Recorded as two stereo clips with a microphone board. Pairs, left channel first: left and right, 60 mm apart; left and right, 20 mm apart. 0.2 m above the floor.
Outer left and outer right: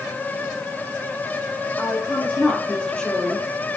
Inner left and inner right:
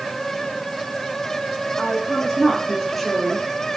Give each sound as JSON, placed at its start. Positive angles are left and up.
{"t": 1.8, "sound": "a woman speaking", "side_deg": 30, "distance_m": 6.5}